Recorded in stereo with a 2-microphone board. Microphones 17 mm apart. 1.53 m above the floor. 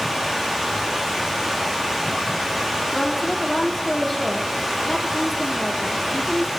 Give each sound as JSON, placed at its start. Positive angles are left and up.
{"t": 0.0, "sound": "running water", "side_deg": -20, "distance_m": 3.0}
{"t": 2.9, "sound": "a woman speaking", "side_deg": 10, "distance_m": 3.5}